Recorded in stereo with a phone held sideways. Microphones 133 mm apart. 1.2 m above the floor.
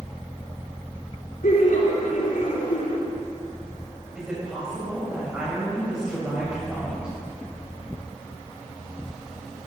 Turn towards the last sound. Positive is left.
turn(degrees=-5)  # may be behind; listen again after turning